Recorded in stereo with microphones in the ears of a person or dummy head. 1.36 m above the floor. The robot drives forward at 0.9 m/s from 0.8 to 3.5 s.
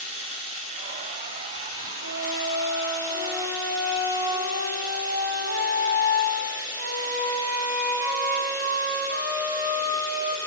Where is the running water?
30° right (ahead or behind), 1.8 m; by 10.5 s 15° right (ahead or behind), 3.5 m.